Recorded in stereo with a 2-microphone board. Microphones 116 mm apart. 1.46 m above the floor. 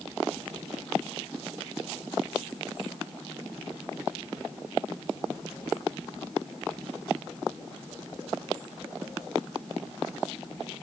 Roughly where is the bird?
I don't hear a bird.